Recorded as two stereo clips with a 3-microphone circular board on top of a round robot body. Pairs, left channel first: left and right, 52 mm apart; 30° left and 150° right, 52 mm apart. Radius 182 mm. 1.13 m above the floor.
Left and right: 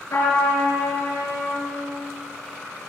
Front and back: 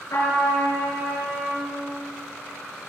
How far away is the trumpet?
About 6.5 m.